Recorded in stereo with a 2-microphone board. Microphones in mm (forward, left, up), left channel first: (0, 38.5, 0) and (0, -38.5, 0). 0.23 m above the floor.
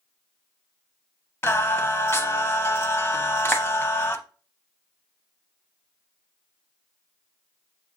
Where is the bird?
No bird in this recording.